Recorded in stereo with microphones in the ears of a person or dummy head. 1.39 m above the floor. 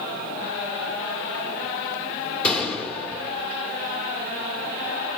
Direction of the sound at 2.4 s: 10° left (ahead or behind).